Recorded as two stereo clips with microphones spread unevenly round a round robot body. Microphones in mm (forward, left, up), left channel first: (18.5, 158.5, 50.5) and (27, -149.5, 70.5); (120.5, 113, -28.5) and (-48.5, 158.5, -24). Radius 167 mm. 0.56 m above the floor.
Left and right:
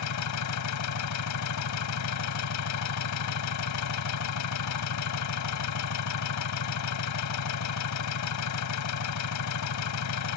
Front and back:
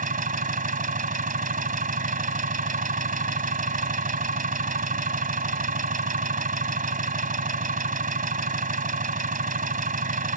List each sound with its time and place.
0.0 s an engine running: 125° left